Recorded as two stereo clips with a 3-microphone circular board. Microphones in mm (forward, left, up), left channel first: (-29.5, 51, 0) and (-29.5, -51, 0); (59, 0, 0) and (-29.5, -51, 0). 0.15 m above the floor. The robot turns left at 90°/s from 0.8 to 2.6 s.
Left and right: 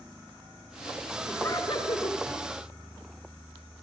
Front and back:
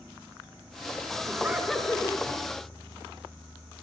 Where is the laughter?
165° left, 1.8 m; by 2.2 s 80° left, 1.8 m.